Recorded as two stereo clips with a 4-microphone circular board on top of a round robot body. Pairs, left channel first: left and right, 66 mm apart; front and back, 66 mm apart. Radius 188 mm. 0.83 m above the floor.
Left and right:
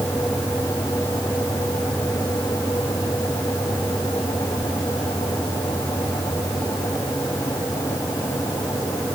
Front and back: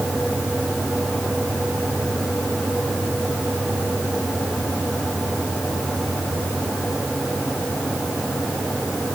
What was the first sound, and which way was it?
Only background noise.